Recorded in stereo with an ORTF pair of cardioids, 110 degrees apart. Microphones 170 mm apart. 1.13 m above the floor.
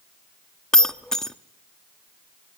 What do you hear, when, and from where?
0.7 s breaking glass: 5° left, 1.1 m